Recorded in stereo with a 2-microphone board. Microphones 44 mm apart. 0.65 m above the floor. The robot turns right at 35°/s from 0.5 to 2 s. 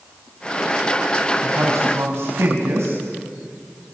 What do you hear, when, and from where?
1.4 s a man speaking: 80° right, 5 m; by 3.0 s 70° right (ahead or behind), 5 m